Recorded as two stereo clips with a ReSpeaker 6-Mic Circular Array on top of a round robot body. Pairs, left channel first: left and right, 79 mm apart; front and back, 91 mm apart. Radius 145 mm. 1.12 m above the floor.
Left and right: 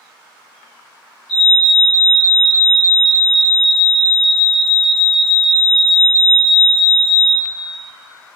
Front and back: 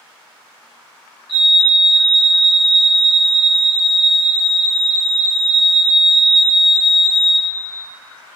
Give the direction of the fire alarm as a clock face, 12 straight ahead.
12 o'clock.